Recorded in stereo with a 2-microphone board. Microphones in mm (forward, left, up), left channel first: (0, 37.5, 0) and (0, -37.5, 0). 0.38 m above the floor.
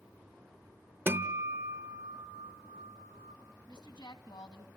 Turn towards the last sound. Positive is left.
turn(degrees=70)  # may be behind; listen again after turning